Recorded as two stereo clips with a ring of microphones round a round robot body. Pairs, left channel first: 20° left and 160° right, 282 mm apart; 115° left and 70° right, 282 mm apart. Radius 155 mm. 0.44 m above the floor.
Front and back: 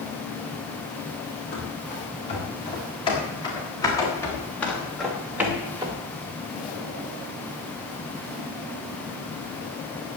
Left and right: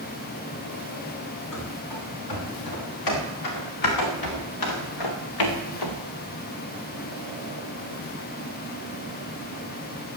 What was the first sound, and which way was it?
Running footsteps, 90° left.